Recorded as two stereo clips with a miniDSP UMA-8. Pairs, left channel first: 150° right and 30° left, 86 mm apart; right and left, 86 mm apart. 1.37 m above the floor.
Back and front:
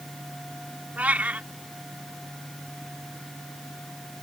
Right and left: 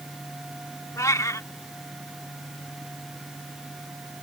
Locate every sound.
1.0 s a cat meowing: 40° right